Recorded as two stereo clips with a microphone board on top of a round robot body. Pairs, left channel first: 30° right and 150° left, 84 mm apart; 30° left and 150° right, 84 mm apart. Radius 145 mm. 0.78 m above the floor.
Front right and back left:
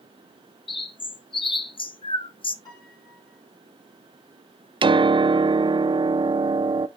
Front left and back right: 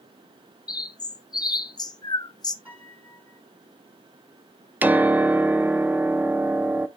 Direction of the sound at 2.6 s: 80° right.